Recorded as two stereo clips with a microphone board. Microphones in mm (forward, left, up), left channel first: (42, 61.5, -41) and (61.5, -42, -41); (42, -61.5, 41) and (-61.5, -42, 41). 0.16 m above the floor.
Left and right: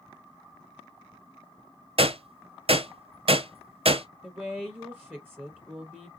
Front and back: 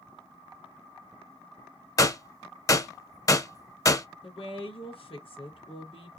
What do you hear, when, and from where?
2.0 s a gunshot: 70° right, 0.7 m
4.2 s a woman speaking: 10° right, 3 m